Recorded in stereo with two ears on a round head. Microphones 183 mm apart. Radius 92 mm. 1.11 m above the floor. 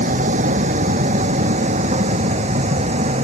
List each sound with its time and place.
0.0 s a vehicle: 40° right (ahead or behind); by 3.2 s 35° right (ahead or behind)